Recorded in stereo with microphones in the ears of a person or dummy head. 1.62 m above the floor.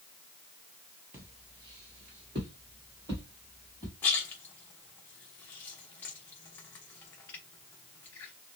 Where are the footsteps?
15° right (ahead or behind), 2 m.